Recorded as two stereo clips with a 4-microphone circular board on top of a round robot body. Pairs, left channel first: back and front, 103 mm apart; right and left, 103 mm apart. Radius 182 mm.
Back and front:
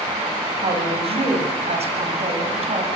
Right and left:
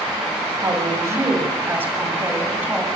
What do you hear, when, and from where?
0.6 s a woman speaking: 30° left, 7 m; by 2.9 s 10° left, 7.5 m